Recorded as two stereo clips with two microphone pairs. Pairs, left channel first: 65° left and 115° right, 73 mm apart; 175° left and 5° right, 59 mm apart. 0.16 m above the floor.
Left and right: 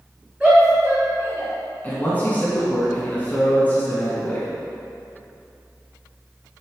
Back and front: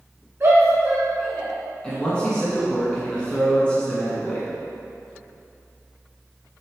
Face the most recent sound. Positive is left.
turn(degrees=110)